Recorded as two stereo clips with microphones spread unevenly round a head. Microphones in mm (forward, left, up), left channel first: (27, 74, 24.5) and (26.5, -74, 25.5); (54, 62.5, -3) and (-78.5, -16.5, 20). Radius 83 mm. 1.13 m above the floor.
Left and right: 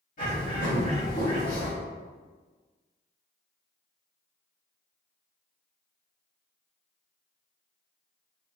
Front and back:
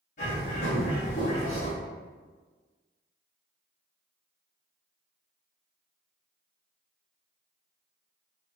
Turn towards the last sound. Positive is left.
turn(degrees=65)